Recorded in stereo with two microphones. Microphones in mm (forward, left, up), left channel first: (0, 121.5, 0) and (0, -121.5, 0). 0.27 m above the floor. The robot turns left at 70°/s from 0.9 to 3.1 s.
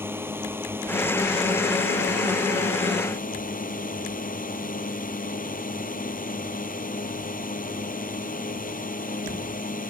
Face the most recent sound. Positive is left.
turn(degrees=35)